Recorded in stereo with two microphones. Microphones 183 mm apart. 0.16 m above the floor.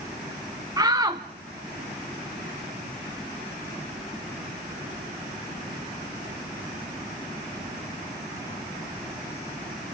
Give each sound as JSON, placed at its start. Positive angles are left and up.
{"t": 0.8, "sound": "a shout", "side_deg": -20, "distance_m": 1.1}